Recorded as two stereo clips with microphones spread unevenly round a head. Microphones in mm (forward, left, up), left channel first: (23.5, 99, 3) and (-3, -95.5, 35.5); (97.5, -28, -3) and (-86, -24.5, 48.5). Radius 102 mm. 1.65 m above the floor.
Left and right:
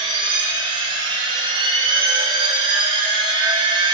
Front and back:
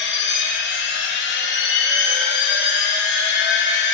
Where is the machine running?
30° right, 1.7 m.